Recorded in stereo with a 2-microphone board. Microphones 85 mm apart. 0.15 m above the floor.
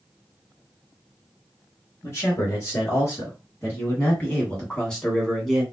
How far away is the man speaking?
About 2.0 m.